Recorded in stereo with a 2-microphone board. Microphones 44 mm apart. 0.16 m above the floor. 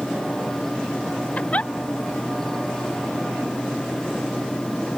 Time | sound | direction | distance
1.4 | a giggle | 30° left (ahead or behind) | ?